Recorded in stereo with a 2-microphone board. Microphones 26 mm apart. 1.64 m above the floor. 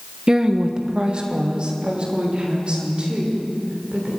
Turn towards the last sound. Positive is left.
turn(degrees=-40)  # may be behind; listen again after turning